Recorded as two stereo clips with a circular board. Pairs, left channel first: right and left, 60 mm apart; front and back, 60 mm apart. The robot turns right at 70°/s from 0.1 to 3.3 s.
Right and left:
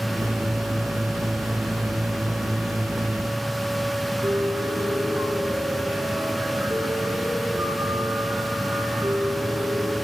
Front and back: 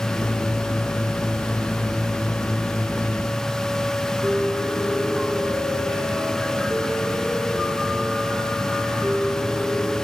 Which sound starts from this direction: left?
A piano, at 4.2 s.